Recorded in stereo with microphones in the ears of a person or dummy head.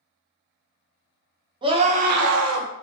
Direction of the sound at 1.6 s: 20° right (ahead or behind).